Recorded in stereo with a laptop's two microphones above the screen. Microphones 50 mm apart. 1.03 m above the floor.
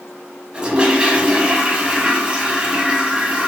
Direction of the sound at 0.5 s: 20° right (ahead or behind).